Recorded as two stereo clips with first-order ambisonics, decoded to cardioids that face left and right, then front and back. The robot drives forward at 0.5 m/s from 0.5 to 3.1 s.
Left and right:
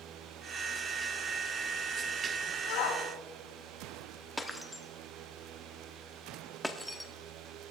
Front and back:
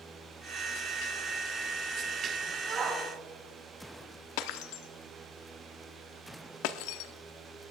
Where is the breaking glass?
5° left, 0.9 m.